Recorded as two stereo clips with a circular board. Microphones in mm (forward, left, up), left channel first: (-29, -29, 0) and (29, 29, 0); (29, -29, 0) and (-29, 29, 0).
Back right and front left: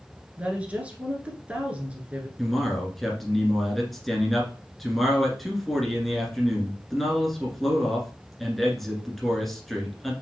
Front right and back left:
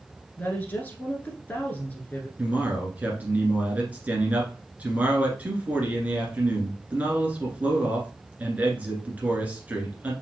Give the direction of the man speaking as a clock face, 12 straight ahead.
7 o'clock.